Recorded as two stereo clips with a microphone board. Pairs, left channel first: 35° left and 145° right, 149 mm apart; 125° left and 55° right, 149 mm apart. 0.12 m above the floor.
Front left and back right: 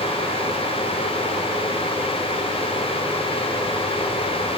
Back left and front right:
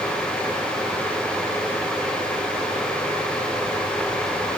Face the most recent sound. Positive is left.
No sound to turn to.